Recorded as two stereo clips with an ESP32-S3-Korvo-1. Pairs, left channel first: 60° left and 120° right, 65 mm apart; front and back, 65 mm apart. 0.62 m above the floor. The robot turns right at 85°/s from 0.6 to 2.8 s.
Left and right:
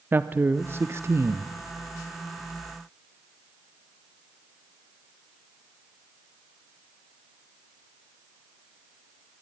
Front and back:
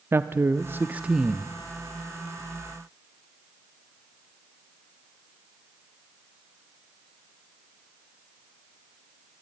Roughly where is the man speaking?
Behind.